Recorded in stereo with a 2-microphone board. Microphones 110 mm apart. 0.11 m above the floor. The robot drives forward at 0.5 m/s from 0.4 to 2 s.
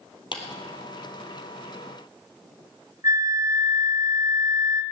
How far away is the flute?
About 1.2 m.